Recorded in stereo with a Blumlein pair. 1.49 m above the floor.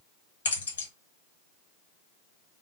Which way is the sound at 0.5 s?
70° left.